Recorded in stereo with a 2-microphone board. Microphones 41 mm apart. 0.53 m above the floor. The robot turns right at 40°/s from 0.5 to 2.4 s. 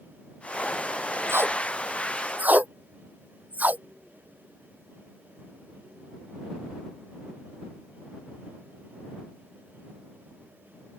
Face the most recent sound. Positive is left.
turn(degrees=-45)  # may be behind; listen again after turning